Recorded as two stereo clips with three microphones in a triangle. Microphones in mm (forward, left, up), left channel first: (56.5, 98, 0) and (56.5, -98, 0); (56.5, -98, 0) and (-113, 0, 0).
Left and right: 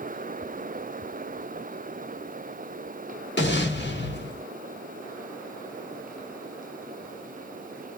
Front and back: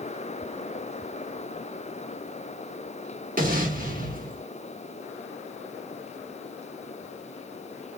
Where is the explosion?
110° left, 1.2 m.